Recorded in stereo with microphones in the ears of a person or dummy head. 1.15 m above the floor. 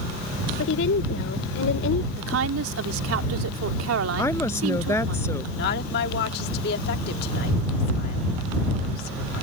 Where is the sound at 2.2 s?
85° right.